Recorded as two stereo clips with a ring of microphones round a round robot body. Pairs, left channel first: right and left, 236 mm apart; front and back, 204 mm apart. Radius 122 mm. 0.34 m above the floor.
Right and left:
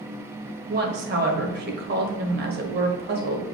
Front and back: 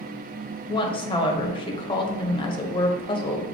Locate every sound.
0.7 s a woman speaking: 60° left, 1.4 m